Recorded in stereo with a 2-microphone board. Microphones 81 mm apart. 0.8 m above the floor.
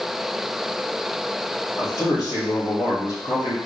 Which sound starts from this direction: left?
A man speaking, at 1.8 s.